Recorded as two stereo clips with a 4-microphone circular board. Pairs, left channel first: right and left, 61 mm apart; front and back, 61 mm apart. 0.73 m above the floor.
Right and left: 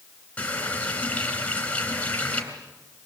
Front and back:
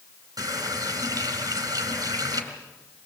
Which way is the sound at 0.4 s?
160° right.